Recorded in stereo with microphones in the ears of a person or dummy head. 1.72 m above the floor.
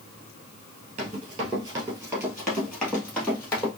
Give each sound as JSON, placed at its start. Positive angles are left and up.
{"t": 1.0, "sound": "running footsteps", "side_deg": -20, "distance_m": 1.8}